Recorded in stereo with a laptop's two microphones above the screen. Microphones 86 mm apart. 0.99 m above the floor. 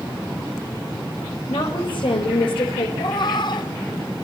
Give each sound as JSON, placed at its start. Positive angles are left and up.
{"t": 1.5, "sound": "a woman speaking", "side_deg": 70, "distance_m": 4.0}
{"t": 3.0, "sound": "a cat meowing", "side_deg": 55, "distance_m": 0.9}